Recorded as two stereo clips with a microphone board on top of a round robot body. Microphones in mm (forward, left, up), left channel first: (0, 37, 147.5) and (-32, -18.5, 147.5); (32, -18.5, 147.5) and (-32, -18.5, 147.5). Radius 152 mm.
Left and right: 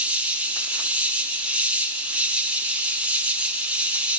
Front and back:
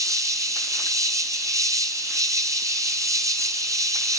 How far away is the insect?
About 2 m.